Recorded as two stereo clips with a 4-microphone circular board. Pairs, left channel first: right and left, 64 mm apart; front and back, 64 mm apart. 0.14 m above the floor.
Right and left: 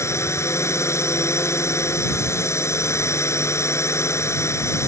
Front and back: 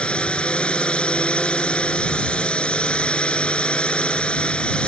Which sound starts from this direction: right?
A drone, at 0.0 s.